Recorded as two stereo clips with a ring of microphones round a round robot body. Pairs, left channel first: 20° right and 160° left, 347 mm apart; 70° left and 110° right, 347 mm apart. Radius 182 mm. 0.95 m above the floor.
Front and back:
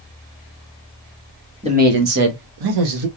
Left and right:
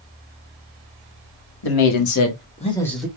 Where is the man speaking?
85° left, 1.1 m; by 3.1 s 160° left, 1.1 m.